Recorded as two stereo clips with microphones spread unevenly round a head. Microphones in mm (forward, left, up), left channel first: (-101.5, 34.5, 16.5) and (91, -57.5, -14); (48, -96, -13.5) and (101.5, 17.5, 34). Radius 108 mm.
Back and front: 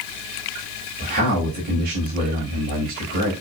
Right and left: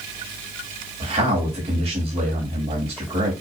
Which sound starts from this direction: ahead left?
A man speaking, at 1.0 s.